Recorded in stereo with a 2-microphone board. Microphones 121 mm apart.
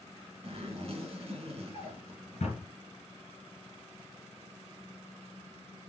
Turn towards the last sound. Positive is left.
turn(degrees=65)  # may be behind; listen again after turning